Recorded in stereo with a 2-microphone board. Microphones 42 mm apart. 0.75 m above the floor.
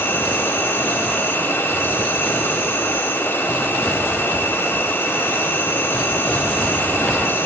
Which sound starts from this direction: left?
An insect, at 0.0 s.